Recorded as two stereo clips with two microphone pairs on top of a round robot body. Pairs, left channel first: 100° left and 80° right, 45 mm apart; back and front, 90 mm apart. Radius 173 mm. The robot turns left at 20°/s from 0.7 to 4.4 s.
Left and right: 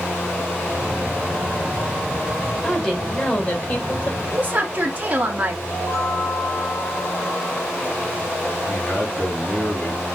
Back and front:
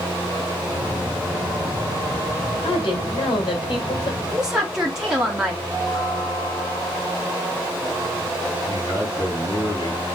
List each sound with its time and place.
2.6 s a woman speaking: 175° left, 2 m; by 4.2 s 145° left, 2 m
4.3 s a woman speaking: 55° right, 1.3 m
5.7 s a chime: 125° left, 3 m
8.7 s a man speaking: 155° left, 2 m